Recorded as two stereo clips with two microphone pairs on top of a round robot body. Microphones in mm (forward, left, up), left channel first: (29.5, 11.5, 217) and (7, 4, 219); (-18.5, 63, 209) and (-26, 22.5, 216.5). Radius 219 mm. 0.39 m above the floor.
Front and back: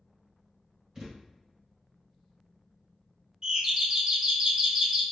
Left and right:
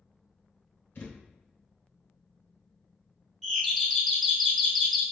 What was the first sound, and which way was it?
A thud, 120° left.